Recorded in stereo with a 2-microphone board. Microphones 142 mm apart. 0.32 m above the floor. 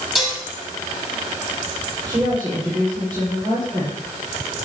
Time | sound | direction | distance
0.1 | dishes clattering | 5° right (ahead or behind) | 6 m
2.1 | a woman speaking | 35° right (ahead or behind) | 8.5 m